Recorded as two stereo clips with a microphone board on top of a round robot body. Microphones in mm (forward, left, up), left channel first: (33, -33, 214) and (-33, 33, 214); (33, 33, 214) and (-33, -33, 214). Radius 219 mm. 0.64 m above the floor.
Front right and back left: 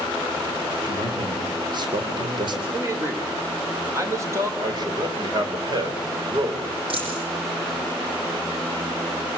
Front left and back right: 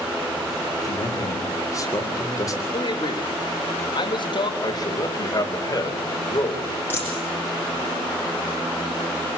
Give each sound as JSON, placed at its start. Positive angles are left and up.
{"t": 0.8, "sound": "a man speaking", "azimuth_deg": 95, "distance_m": 3.5}
{"t": 2.7, "sound": "a man speaking", "azimuth_deg": 75, "distance_m": 3.5}
{"t": 4.6, "sound": "a man speaking", "azimuth_deg": 90, "distance_m": 4.5}
{"t": 6.9, "sound": "a dropped coin", "azimuth_deg": 110, "distance_m": 8.5}